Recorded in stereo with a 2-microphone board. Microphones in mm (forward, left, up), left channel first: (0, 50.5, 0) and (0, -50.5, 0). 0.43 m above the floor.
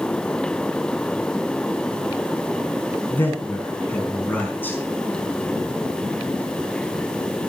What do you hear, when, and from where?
3.1 s a man speaking: 20° left (ahead or behind), 4 m